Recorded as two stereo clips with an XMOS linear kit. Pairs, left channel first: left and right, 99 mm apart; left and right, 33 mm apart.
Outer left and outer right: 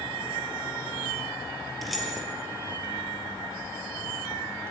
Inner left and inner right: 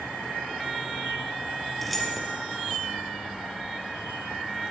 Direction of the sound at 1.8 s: Centre (ahead or behind).